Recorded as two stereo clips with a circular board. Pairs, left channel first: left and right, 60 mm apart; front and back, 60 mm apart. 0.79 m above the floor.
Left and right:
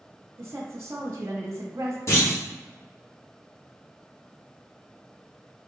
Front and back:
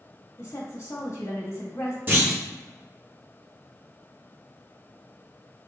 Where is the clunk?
125° left, 1.6 m.